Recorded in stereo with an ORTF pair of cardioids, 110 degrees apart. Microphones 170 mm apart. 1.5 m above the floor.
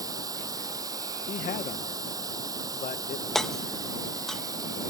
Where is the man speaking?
45° left.